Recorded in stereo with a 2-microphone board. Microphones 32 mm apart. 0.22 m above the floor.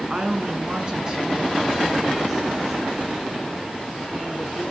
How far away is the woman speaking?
About 2.0 m.